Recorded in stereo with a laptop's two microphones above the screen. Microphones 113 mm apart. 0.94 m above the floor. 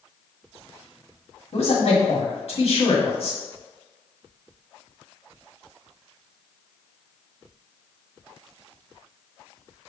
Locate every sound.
1.5 s a man speaking: 60° left (ahead or behind), 1.6 m